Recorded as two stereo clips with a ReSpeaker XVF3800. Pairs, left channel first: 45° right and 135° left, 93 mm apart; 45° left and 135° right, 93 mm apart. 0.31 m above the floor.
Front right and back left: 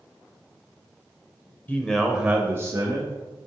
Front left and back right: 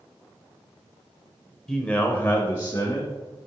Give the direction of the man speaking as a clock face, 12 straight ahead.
1 o'clock.